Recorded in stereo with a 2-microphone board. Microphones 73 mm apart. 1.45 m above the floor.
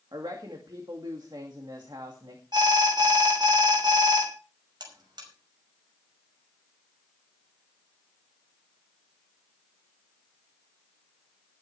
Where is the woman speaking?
80° right, 2.5 m.